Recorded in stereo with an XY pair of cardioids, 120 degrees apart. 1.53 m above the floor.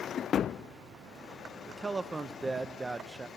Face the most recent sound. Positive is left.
turn(degrees=-20)